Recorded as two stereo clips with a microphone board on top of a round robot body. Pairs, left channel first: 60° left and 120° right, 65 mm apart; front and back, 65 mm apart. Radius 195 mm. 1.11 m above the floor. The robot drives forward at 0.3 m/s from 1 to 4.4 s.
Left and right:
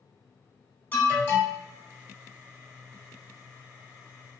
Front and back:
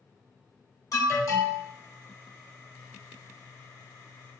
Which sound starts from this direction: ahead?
An alarm, at 0.9 s.